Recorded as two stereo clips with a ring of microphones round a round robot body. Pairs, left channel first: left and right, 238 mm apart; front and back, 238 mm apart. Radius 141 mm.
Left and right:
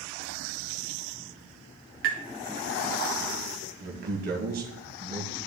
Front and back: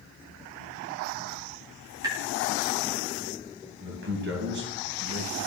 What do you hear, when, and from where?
2.0 s tapping: 110° right, 2.0 m
3.8 s a man speaking: 140° right, 2.5 m